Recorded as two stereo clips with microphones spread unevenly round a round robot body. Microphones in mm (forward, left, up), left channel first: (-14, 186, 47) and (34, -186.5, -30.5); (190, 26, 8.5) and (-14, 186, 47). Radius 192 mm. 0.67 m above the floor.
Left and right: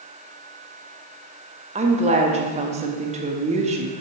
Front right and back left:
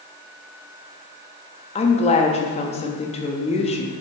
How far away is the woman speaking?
About 0.6 m.